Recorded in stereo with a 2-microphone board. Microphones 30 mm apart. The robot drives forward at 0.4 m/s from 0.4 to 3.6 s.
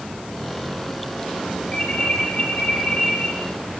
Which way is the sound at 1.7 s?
30° left (ahead or behind).